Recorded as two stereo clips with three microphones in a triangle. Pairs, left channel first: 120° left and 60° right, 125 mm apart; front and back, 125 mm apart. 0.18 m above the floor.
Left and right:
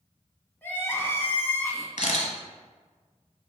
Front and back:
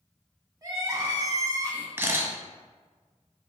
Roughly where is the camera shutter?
Left.